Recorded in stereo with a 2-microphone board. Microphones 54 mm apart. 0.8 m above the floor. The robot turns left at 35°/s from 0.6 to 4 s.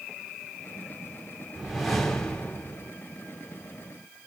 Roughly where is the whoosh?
Behind.